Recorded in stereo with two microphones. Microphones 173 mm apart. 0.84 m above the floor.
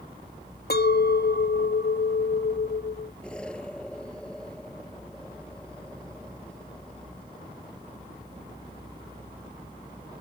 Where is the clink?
65° left (ahead or behind).